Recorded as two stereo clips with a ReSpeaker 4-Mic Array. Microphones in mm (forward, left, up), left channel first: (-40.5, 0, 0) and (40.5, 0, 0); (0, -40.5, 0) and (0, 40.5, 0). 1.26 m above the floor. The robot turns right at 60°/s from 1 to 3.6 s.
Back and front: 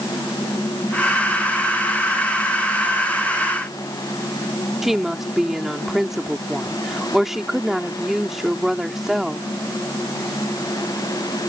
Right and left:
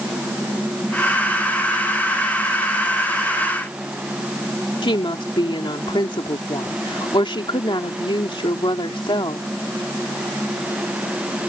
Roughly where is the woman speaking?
Right.